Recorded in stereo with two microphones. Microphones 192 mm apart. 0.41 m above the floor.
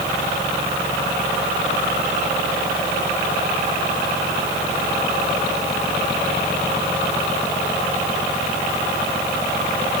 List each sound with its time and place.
Only background noise.